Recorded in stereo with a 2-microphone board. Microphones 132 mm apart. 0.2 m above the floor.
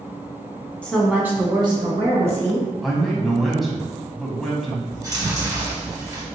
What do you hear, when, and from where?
0.8 s a woman speaking: 10° left (ahead or behind), 1.4 m; by 2.7 s 65° right (ahead or behind), 2.5 m
2.8 s a man speaking: centre (ahead or behind), 1.0 m
4.9 s chewing: 25° right (ahead or behind), 1.8 m